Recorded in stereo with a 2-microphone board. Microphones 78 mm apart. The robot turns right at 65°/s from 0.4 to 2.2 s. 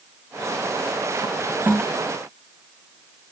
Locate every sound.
1.7 s a toilet flushing: 20° right (ahead or behind); by 1.8 s 30° right (ahead or behind)